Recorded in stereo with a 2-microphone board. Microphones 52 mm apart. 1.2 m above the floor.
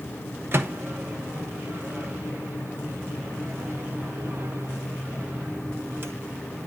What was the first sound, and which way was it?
A microwave, 50° right (ahead or behind).